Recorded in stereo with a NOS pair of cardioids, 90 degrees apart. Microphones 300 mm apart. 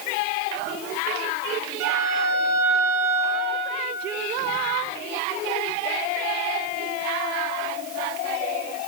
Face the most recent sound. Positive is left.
turn(degrees=-60)